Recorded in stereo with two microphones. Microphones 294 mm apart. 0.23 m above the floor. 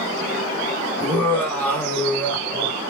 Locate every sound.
1.0 s laughter: 5° left (ahead or behind), 4 m